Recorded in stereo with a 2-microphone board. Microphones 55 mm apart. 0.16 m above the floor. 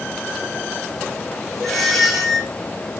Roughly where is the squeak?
Centre.